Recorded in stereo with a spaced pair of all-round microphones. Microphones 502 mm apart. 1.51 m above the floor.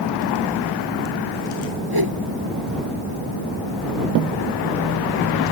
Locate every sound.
1.9 s a whoosh: 45° right (ahead or behind)